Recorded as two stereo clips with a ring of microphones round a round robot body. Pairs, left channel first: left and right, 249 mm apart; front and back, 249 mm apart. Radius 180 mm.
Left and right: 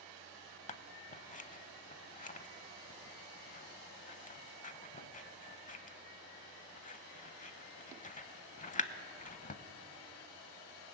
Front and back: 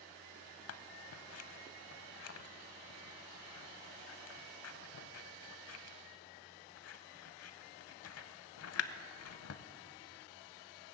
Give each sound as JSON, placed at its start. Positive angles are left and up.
{"t": 0.7, "sound": "scissors", "azimuth_deg": 30, "distance_m": 0.8}